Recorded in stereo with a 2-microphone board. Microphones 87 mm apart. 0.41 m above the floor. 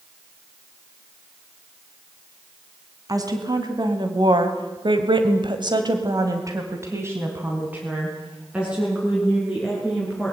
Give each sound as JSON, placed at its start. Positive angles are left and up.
{"t": 3.1, "sound": "a woman speaking", "side_deg": -45, "distance_m": 3.0}